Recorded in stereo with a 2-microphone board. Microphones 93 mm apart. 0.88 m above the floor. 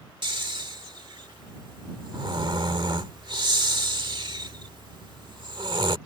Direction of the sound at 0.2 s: 55° right (ahead or behind).